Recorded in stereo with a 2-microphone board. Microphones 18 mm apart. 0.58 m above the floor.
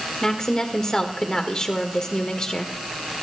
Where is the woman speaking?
40° left (ahead or behind), 1.5 m.